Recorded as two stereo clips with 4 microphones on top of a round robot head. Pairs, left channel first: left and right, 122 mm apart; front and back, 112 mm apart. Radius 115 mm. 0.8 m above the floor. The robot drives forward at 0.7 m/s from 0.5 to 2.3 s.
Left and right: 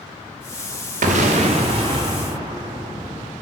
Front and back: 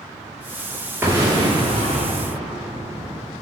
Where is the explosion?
105° right, 0.9 m; by 3.3 s 145° right, 1.4 m.